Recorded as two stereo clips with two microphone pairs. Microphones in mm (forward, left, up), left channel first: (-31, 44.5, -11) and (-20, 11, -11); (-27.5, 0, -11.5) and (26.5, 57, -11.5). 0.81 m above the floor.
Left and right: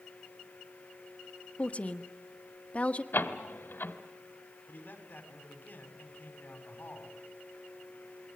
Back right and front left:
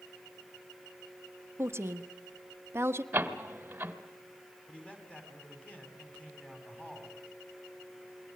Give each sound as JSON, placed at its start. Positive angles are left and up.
{"t": 1.6, "sound": "a woman speaking", "azimuth_deg": 85, "distance_m": 1.2}
{"t": 3.1, "sound": "a door slam", "azimuth_deg": 110, "distance_m": 2.0}
{"t": 4.7, "sound": "a man speaking", "azimuth_deg": 145, "distance_m": 5.5}